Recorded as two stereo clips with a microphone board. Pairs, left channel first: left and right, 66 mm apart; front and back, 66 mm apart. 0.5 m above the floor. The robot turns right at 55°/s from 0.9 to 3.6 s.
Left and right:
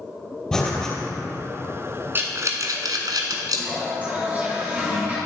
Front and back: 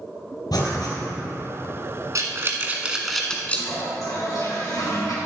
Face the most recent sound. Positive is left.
turn(degrees=-25)